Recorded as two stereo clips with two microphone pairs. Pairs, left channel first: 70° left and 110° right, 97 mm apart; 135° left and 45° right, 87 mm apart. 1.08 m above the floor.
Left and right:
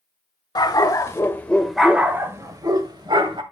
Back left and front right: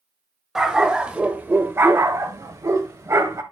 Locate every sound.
0.6 s a dog barking: 40° left, 1.3 m; by 3.4 s 95° right, 1.5 m